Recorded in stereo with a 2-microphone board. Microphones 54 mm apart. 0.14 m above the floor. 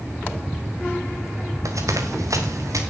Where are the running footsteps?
85° right, 3 m; by 2.8 s 90° right, 4.5 m.